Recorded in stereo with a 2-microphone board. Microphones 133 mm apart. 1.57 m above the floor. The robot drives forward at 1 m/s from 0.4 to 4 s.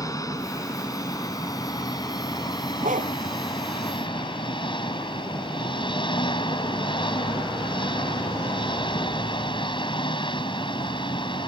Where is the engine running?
25° left (ahead or behind); by 11.5 s 40° left (ahead or behind).